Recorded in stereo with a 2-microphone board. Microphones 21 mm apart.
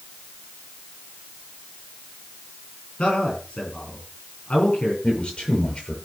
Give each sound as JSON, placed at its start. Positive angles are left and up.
{"t": 3.0, "sound": "a man speaking", "side_deg": 60, "distance_m": 8.0}
{"t": 5.0, "sound": "a man speaking", "side_deg": 45, "distance_m": 7.0}